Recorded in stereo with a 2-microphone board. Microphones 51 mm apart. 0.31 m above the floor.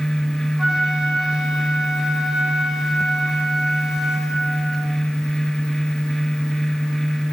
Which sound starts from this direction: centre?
A flute, at 0.6 s.